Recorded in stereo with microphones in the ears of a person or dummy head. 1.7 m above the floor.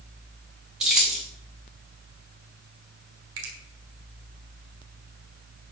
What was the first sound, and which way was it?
Keys jangling, 5° right (ahead or behind).